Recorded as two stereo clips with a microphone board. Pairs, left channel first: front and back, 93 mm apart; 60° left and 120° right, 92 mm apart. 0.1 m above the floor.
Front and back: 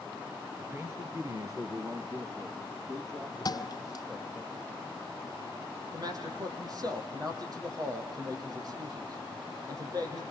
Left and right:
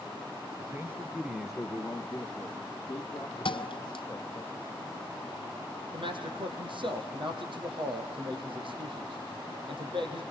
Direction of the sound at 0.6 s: 140° right.